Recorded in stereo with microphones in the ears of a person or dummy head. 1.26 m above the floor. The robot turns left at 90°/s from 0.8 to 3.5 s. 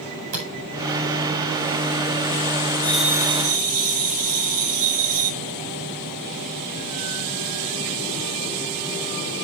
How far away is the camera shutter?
About 5.5 m.